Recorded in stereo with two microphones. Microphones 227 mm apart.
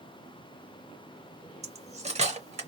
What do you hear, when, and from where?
1.6 s cutlery clinking: 30° right (ahead or behind), 0.6 m